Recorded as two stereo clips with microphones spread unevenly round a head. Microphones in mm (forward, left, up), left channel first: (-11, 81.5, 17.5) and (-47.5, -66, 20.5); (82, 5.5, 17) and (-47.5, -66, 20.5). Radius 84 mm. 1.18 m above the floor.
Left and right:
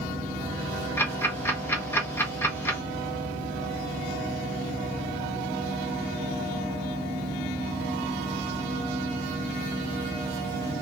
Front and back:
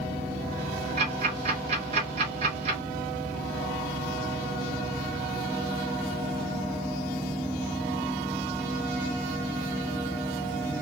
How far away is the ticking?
About 1.4 m.